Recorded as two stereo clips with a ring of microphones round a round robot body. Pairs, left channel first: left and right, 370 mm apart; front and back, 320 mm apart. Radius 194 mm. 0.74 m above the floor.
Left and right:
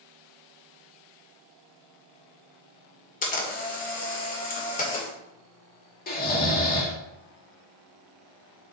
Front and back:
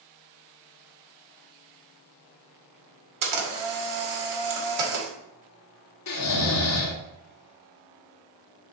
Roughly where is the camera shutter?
Behind.